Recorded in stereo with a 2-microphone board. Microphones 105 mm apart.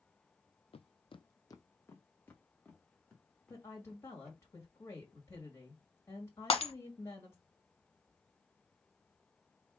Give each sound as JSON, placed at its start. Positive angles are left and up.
{"t": 0.7, "sound": "footsteps", "side_deg": 60, "distance_m": 0.5}
{"t": 3.5, "sound": "a woman speaking", "side_deg": 25, "distance_m": 1.5}
{"t": 6.5, "sound": "breaking glass", "side_deg": 60, "distance_m": 1.2}